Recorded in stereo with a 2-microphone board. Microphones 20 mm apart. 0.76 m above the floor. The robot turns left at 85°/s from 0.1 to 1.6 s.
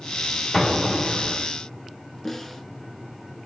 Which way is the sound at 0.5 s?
20° left.